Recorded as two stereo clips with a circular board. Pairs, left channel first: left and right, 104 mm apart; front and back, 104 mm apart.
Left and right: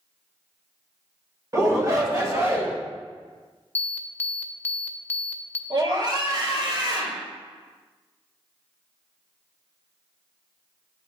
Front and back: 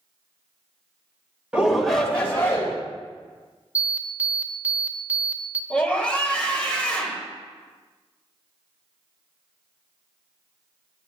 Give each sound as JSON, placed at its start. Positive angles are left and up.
{"t": 1.5, "sound": "a shout", "azimuth_deg": -110, "distance_m": 1.1}
{"t": 3.8, "sound": "an alarm", "azimuth_deg": 130, "distance_m": 0.5}
{"t": 5.7, "sound": "a scream", "azimuth_deg": -75, "distance_m": 1.2}